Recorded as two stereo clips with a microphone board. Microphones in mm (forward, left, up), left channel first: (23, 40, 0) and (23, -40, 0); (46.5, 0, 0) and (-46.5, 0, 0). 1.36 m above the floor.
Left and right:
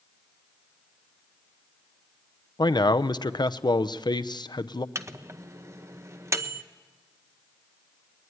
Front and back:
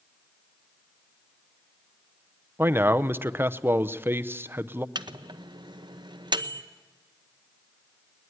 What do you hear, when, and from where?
2.6 s a man speaking: 115° left, 0.7 m
5.0 s a microwave: 145° right, 0.8 m